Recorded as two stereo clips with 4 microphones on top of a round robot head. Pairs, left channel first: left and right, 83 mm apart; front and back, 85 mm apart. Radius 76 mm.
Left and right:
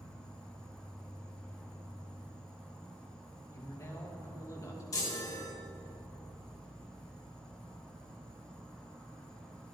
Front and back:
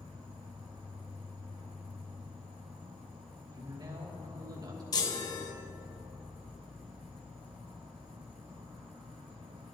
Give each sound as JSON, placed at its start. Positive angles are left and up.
{"t": 0.0, "sound": "an insect", "azimuth_deg": 170, "distance_m": 2.5}
{"t": 3.5, "sound": "a man speaking", "azimuth_deg": 140, "distance_m": 3.0}
{"t": 4.9, "sound": "a chime", "azimuth_deg": 35, "distance_m": 1.5}